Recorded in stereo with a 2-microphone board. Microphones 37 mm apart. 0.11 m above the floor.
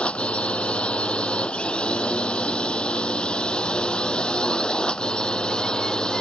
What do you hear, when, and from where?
0.0 s a drone: 30° left (ahead or behind); by 6.2 s 25° left (ahead or behind)